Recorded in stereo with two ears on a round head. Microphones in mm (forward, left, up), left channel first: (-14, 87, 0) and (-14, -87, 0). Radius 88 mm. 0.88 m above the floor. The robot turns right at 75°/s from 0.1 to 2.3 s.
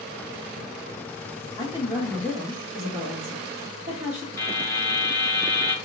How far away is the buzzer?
About 2 m.